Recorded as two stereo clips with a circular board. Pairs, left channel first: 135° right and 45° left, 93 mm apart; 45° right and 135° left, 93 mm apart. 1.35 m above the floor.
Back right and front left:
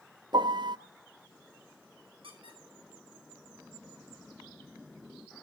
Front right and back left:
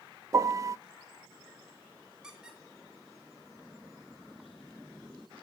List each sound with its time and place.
0.3 s a piano: 80° left, 0.5 m
2.2 s a squeak: 50° left, 3 m